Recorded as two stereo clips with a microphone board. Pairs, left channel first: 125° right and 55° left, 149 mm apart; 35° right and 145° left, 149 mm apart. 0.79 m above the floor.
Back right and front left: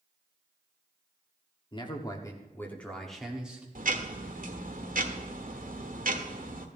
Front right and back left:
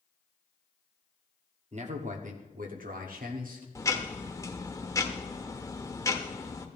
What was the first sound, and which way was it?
A man speaking, straight behind.